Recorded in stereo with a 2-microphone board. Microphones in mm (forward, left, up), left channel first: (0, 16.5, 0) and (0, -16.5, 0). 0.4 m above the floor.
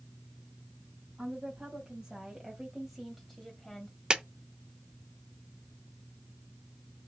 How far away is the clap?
About 0.6 m.